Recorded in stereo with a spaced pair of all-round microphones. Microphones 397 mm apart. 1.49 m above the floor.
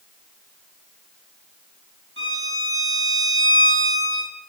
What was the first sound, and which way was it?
A violin, 30° right (ahead or behind).